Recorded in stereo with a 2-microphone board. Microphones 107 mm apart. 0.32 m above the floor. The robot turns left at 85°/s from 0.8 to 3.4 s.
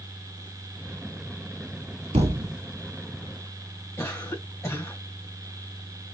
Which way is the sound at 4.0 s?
30° left (ahead or behind).